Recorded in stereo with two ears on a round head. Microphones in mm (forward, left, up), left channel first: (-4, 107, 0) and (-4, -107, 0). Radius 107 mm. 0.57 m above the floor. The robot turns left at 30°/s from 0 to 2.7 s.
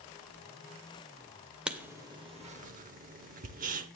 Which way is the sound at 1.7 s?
5° right (ahead or behind).